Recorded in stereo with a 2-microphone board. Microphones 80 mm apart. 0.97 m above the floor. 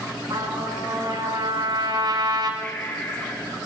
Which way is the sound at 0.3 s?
65° right (ahead or behind).